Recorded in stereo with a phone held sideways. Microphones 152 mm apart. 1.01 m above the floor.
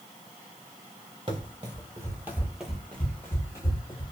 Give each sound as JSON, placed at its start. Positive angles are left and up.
{"t": 1.3, "sound": "running footsteps", "side_deg": -35, "distance_m": 1.2}